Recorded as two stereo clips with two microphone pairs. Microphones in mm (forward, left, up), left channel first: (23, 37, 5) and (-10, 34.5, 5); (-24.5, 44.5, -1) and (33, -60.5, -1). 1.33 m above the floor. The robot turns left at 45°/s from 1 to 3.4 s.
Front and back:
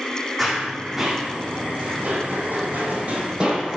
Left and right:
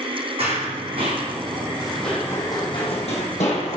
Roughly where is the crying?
I don't hear crying.